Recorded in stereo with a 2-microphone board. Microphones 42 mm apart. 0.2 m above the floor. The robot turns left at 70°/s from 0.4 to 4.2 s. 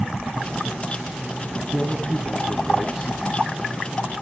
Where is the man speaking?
20° left (ahead or behind), 1.1 m; by 3.1 s 10° right (ahead or behind), 1.1 m.